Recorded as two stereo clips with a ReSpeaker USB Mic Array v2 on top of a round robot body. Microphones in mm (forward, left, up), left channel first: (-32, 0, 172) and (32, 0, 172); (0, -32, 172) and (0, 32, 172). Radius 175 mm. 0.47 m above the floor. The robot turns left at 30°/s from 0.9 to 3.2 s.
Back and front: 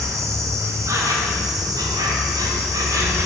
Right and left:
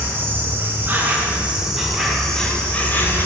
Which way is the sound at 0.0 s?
35° left.